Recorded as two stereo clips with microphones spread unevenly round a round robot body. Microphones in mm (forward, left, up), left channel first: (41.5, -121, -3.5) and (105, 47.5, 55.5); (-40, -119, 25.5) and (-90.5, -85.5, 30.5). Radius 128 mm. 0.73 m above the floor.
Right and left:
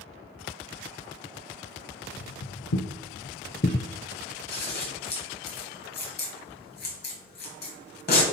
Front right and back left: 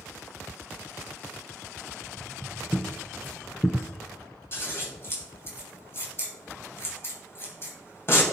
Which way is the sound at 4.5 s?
80° right.